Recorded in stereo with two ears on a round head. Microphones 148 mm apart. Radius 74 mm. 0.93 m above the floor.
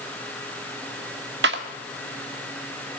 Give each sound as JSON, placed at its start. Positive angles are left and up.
{"t": 1.4, "sound": "a clap", "side_deg": -75, "distance_m": 1.9}